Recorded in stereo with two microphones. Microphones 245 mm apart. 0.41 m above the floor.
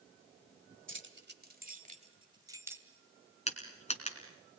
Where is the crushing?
25° left (ahead or behind), 3 m.